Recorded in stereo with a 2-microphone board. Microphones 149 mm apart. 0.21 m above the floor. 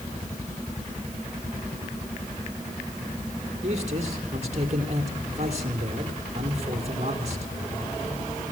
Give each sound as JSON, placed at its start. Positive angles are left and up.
{"t": 3.6, "sound": "a man speaking", "side_deg": -45, "distance_m": 5.5}